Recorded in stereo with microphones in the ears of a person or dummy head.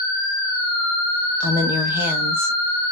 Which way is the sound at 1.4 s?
5° right (ahead or behind).